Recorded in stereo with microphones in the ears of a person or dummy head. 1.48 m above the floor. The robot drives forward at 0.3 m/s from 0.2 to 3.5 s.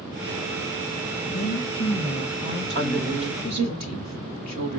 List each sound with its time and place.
1.3 s a woman speaking: 60° left (ahead or behind), 2.5 m; by 3.8 s 50° left (ahead or behind), 3 m
2.8 s a woman speaking: 50° right (ahead or behind), 2 m; by 4.8 s 45° right (ahead or behind), 2 m